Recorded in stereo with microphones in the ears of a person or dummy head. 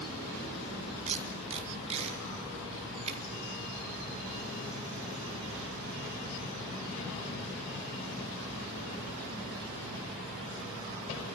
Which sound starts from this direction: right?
Tape being pulled, at 1.1 s.